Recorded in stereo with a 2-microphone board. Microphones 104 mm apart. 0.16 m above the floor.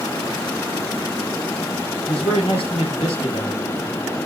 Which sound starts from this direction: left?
A man speaking, at 2.1 s.